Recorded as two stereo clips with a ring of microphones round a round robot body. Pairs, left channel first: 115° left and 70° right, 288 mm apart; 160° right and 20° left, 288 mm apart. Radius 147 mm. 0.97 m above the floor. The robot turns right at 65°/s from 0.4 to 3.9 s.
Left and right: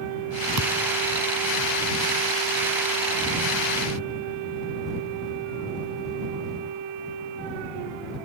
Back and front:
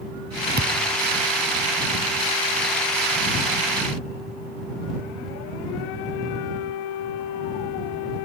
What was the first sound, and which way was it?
A thud, 35° right.